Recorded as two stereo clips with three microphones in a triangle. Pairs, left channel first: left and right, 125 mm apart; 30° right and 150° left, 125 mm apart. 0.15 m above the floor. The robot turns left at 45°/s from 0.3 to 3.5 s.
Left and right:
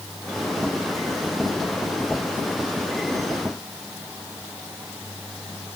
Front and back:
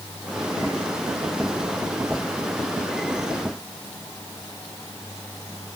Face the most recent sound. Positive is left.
No sound to turn to.